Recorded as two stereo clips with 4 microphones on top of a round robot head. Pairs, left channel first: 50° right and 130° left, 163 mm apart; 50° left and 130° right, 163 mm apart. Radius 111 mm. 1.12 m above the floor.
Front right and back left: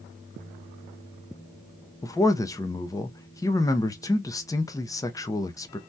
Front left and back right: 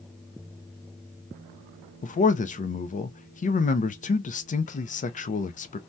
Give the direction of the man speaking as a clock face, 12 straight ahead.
11 o'clock.